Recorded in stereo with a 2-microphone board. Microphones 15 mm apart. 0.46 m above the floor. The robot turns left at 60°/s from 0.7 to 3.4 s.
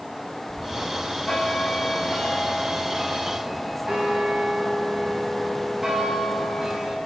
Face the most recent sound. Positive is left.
turn(degrees=-30)